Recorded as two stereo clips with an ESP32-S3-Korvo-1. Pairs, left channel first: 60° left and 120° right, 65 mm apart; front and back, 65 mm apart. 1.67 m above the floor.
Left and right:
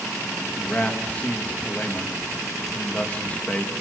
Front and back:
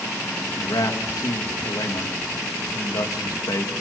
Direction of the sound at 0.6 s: 5° right.